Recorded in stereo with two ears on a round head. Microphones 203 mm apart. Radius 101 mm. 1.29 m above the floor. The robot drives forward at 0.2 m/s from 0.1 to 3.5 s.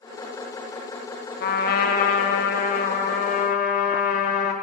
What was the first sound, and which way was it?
A trumpet, 40° left (ahead or behind).